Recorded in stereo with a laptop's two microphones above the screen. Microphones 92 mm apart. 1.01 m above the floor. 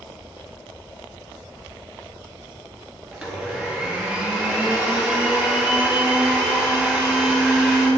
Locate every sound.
3.1 s a blender: 10° right (ahead or behind), 1.6 m